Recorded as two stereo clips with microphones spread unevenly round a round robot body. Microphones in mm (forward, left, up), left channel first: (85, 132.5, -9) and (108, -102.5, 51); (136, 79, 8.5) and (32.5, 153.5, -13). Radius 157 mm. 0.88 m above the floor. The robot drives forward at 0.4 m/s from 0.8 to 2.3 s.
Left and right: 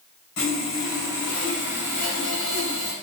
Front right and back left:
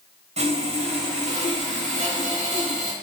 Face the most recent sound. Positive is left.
turn(degrees=120)